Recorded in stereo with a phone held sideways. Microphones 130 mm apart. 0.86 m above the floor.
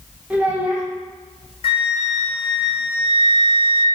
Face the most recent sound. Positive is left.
turn(degrees=45)  # may be behind; listen again after turning